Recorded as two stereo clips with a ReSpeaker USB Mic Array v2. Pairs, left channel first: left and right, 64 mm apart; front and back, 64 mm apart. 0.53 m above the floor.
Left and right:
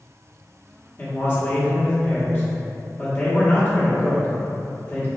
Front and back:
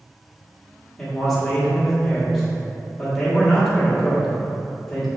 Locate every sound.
1.0 s a man speaking: 80° left, 1.3 m